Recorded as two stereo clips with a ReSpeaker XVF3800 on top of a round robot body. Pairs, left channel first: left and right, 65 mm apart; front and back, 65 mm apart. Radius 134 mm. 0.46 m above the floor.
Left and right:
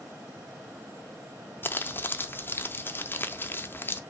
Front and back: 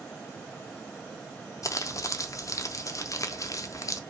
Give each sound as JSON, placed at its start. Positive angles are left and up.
{"t": 1.6, "sound": "crumpling", "azimuth_deg": 35, "distance_m": 0.8}